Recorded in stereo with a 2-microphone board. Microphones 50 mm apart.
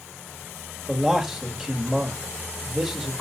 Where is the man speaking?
10° right (ahead or behind), 1.5 m.